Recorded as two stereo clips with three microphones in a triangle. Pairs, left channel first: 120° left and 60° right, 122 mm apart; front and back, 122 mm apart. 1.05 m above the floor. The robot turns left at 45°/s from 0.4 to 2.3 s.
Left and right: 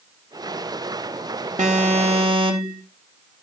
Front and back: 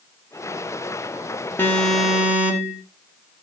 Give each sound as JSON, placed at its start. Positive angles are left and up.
{"t": 1.6, "sound": "an alarm", "azimuth_deg": -70, "distance_m": 2.5}